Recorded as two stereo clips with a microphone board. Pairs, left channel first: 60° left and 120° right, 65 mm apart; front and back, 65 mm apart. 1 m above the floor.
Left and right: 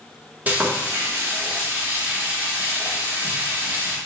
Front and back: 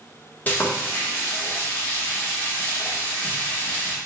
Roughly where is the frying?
Ahead right.